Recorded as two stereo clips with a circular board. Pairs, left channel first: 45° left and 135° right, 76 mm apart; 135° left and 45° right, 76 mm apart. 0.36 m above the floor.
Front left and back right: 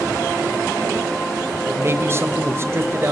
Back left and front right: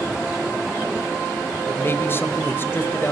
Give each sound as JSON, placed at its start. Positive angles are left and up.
{"t": 1.7, "sound": "a man speaking", "azimuth_deg": -175, "distance_m": 1.4}